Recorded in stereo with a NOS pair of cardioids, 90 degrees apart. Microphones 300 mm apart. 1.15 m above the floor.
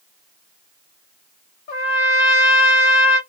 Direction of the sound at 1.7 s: 65° left.